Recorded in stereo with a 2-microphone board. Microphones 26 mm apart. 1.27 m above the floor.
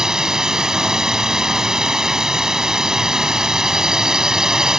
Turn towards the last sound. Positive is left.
turn(degrees=-20)  # may be behind; listen again after turning